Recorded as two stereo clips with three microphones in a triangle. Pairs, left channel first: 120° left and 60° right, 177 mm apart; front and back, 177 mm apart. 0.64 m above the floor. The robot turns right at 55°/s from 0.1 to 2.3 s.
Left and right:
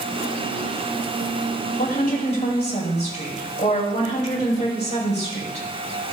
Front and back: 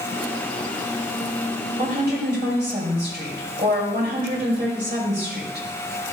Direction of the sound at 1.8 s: 140° left.